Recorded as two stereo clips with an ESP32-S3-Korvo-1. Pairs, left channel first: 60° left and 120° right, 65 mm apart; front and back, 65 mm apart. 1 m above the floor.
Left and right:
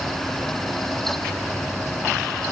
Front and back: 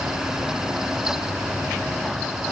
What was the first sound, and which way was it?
Only background noise.